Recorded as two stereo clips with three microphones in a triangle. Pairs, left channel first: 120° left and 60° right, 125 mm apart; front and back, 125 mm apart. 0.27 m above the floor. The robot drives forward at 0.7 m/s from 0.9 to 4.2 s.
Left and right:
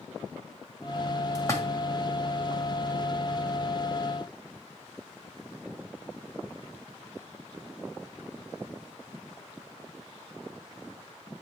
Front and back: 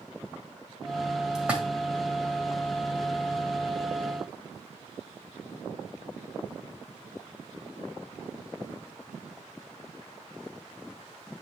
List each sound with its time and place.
1.4 s a splash: 105° left, 1.6 m; by 1.6 s 120° left, 1.6 m